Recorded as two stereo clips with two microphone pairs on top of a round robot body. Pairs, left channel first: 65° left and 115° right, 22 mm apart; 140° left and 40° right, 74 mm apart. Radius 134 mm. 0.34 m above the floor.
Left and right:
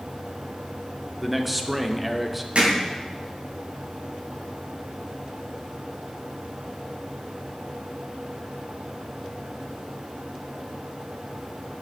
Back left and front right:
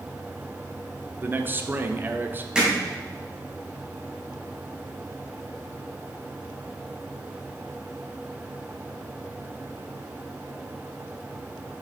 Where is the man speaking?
50° right, 1.0 m.